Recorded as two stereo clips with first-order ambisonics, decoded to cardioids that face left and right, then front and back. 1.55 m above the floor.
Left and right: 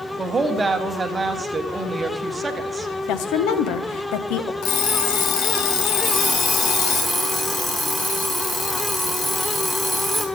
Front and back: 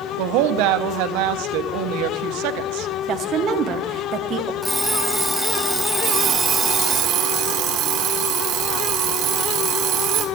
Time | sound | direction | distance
0.2 | a woman speaking | 165° right | 1.0 m
3.1 | a woman speaking | 125° left | 1.1 m
4.6 | an alarm clock | 90° left | 1.5 m
6.0 | an alarm clock | 160° left | 1.7 m